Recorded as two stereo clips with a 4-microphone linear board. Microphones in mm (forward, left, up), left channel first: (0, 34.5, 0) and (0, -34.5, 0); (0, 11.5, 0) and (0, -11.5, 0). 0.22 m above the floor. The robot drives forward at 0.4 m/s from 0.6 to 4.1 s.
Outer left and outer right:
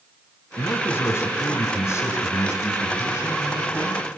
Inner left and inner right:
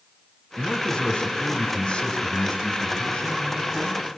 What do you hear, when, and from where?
0.6 s a man speaking: 40° left (ahead or behind), 1.8 m; by 4.1 s 45° left (ahead or behind), 1.6 m